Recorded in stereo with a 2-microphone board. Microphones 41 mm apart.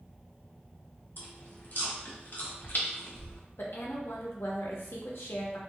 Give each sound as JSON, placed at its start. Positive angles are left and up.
{"t": 1.2, "sound": "chewing", "side_deg": 55, "distance_m": 0.7}
{"t": 3.6, "sound": "a woman speaking", "side_deg": 65, "distance_m": 0.7}